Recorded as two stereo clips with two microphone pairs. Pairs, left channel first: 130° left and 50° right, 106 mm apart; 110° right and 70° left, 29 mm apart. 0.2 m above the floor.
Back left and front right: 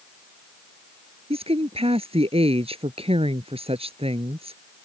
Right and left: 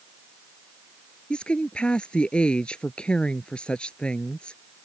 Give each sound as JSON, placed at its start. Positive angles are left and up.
{"t": 1.3, "sound": "a woman speaking", "azimuth_deg": -60}